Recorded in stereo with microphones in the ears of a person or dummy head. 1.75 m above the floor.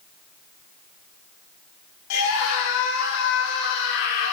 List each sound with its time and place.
2.1 s a scream: 75° left (ahead or behind), 5.5 m; by 4.3 s 65° left (ahead or behind), 6 m